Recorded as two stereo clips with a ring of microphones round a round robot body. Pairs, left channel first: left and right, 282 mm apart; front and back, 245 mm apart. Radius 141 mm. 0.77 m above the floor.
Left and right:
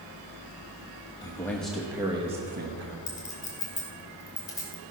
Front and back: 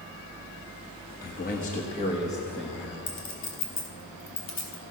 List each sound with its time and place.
1.2 s a man speaking: 20° left, 1.2 m; by 3.0 s 95° right, 1.1 m
3.1 s a clink: 10° left, 3 m